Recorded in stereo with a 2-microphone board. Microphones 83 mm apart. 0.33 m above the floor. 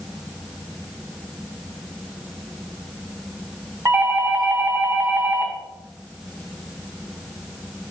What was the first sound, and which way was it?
A doorbell, 30° right (ahead or behind).